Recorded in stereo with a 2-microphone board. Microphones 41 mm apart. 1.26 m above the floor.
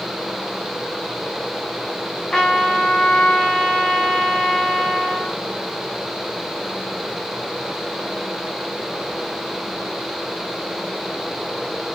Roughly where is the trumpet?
Centre.